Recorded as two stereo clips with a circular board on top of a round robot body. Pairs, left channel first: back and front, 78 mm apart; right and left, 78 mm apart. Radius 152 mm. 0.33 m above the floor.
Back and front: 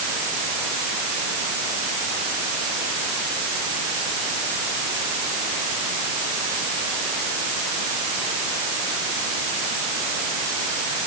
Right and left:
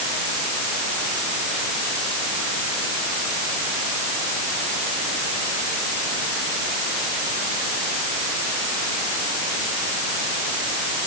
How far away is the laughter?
No laughter in this recording.